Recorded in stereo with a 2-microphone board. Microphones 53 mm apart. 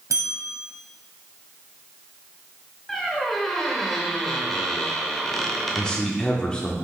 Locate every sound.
0.1 s a bell: 75° right (ahead or behind), 1.3 m
2.9 s a squeak: 5° left (ahead or behind), 1.2 m
5.8 s a man speaking: 15° left (ahead or behind), 0.8 m